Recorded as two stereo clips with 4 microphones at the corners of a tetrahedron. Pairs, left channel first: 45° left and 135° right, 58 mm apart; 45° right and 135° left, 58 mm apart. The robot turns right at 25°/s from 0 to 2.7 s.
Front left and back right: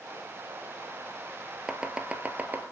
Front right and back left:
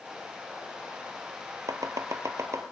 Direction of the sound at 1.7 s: 145° left.